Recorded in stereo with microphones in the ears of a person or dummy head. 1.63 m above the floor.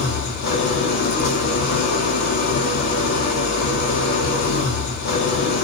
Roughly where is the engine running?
Left.